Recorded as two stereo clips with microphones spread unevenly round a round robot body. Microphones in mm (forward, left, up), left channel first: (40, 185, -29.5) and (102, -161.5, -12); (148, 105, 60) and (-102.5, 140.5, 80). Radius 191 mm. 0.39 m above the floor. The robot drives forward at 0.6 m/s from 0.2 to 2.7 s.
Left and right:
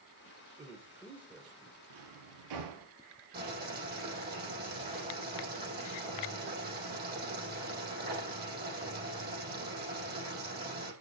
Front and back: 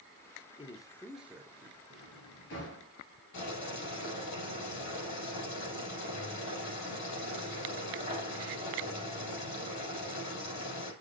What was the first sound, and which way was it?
A man speaking, straight ahead.